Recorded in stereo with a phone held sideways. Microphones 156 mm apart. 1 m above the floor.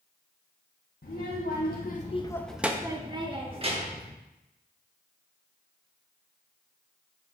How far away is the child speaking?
About 1.1 m.